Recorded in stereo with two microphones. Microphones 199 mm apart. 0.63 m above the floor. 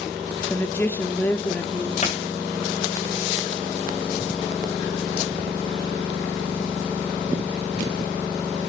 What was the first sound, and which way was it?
A woman speaking, 10° left (ahead or behind).